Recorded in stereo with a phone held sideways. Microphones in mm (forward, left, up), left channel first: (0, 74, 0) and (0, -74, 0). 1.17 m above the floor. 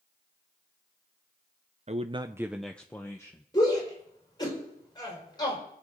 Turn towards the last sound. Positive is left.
turn(degrees=25)  # may be behind; listen again after turning